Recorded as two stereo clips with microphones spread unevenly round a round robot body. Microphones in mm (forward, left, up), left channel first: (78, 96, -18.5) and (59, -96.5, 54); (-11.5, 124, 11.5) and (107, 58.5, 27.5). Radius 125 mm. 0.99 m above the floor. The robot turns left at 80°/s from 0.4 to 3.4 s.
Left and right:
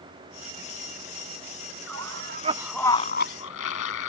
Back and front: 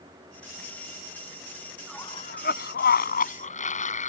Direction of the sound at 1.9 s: 115° right.